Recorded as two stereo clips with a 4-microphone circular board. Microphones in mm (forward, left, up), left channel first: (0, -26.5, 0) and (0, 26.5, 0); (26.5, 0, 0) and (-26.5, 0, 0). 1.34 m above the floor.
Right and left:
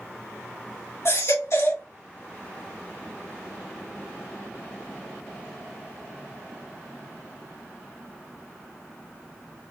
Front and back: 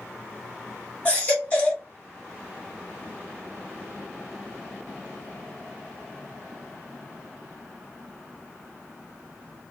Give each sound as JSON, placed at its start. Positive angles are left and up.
{"t": 1.1, "sound": "a baby crying", "azimuth_deg": -65, "distance_m": 2.5}